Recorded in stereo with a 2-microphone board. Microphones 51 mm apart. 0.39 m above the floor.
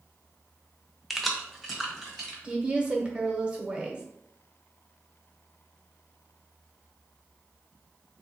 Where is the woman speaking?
20° right (ahead or behind), 0.9 m.